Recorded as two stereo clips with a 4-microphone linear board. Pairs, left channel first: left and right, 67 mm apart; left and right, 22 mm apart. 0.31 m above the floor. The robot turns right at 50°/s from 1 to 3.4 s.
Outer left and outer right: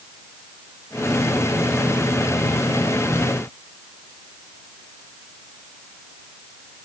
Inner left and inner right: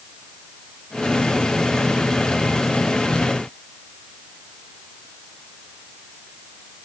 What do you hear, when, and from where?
Only background noise.